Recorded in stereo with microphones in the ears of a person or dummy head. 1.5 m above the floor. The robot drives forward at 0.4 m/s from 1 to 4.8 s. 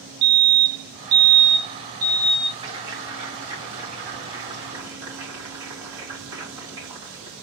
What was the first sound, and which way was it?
A fire alarm, 70° right (ahead or behind).